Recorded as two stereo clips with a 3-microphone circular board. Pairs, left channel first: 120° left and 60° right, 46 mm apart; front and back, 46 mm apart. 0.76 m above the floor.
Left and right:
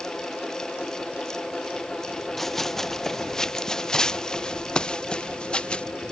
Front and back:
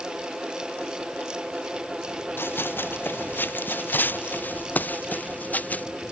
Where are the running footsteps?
35° left; by 5.8 s 55° left.